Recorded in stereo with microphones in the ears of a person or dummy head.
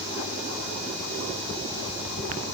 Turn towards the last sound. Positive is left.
No sound to turn to.